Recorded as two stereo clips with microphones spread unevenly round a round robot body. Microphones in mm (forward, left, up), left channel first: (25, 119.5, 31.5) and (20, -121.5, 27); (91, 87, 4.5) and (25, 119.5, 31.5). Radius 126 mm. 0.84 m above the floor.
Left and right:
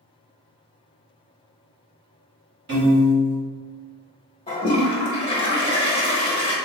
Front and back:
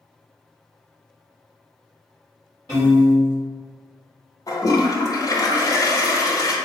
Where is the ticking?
I don't hear ticking.